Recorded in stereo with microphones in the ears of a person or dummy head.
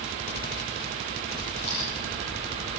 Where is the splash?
35° right (ahead or behind), 8 m.